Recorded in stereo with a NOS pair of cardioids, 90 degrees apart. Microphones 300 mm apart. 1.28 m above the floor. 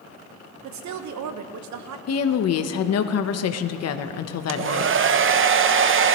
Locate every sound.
0.6 s a woman speaking: 70° right, 1.3 m
2.1 s a woman speaking: 55° left, 1.1 m
4.5 s a hair dryer: 40° right, 0.8 m